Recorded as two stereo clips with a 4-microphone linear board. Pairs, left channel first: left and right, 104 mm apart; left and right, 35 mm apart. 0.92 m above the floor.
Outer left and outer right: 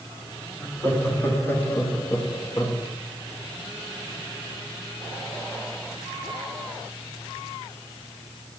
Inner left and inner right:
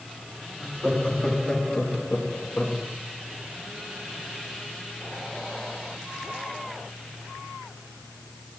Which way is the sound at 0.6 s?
15° left (ahead or behind).